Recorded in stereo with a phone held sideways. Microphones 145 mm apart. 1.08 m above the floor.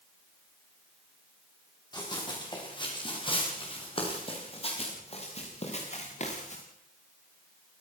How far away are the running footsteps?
About 9 m.